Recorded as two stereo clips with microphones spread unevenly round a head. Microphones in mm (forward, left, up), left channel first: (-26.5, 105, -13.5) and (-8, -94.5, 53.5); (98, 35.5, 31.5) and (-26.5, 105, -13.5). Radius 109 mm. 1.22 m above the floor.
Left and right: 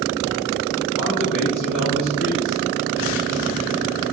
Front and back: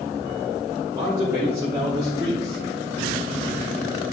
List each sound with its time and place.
1.0 s a man speaking: 75° left, 2.5 m; by 3.1 s 80° left, 4 m